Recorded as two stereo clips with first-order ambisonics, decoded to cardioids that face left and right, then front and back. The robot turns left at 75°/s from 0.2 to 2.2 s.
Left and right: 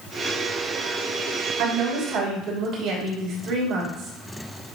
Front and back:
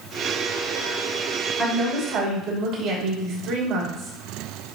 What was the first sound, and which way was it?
A woman speaking, 75° right.